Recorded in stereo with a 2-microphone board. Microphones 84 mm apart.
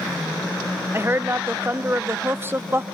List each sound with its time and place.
0.9 s a woman speaking: 25° right (ahead or behind), 0.7 m